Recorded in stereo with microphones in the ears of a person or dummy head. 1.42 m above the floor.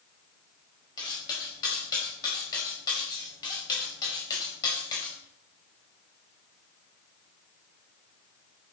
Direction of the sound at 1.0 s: 20° left (ahead or behind).